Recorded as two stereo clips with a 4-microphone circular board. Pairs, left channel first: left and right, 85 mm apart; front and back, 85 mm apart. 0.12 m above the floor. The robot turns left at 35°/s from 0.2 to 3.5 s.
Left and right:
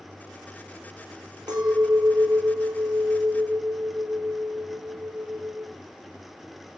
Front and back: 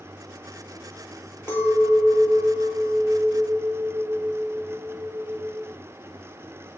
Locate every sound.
1.5 s a clink: 60° right, 1.7 m; by 5.7 s 130° right, 1.7 m